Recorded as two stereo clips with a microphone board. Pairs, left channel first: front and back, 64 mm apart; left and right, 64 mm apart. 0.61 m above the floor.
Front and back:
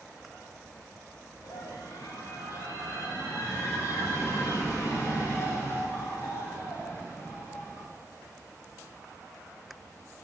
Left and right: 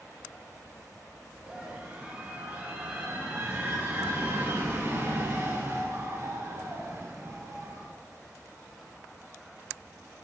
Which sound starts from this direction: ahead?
A scream, at 1.4 s.